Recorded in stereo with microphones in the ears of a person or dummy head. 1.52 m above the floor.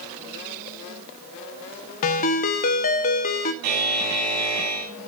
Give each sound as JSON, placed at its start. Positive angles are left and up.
{"t": 2.0, "sound": "a ringtone", "side_deg": 45, "distance_m": 0.7}
{"t": 3.6, "sound": "a buzzer", "side_deg": -55, "distance_m": 3.5}